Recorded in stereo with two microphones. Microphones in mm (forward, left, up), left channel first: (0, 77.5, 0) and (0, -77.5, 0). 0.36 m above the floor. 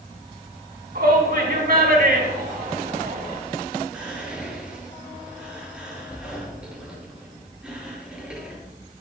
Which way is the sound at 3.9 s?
5° right (ahead or behind).